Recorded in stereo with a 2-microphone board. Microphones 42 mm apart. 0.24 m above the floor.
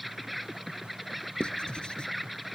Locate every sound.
0.0 s an insect: centre (ahead or behind)
1.4 s writing: 20° left (ahead or behind)